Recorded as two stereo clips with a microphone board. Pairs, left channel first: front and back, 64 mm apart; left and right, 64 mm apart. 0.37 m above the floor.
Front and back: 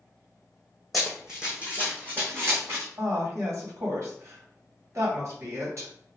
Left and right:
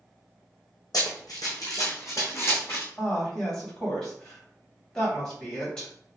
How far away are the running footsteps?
About 1.4 m.